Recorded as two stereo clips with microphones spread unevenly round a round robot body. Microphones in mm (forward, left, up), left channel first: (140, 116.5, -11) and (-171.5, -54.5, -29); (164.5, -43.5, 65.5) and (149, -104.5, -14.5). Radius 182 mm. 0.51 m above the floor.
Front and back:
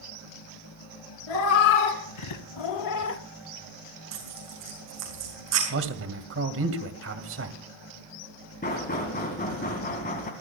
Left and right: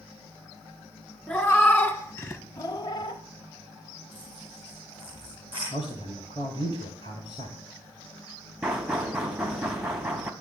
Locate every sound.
1.3 s a cat meowing: 10° left, 3 m; by 3.2 s 100° left, 0.8 m
4.1 s tearing paper: 165° left, 7.5 m
5.7 s a man speaking: 160° left, 2 m
8.6 s knocking: 40° right, 3 m